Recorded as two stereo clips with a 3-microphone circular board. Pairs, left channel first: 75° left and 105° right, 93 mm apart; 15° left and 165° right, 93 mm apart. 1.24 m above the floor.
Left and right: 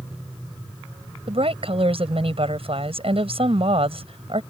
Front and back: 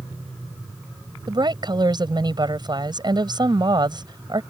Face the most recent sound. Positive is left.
turn(degrees=-125)